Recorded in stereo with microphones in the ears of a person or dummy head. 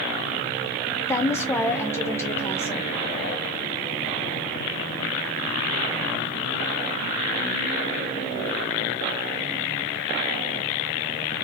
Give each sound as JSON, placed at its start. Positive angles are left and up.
{"t": 1.1, "sound": "a woman speaking", "side_deg": 15, "distance_m": 0.6}